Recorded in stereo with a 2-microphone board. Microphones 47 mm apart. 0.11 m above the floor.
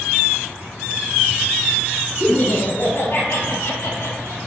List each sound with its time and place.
2.2 s laughter: 25° left (ahead or behind), 1.4 m; by 4.4 s 65° left (ahead or behind), 3 m